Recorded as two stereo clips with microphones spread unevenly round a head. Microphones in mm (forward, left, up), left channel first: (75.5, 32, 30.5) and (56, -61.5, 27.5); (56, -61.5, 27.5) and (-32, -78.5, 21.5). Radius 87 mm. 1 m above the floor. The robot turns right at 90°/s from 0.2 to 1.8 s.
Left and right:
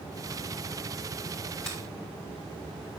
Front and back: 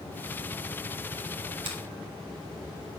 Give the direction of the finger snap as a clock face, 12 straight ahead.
7 o'clock.